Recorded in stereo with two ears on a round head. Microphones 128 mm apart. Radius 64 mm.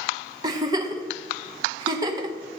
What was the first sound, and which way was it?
A giggle, 30° right (ahead or behind).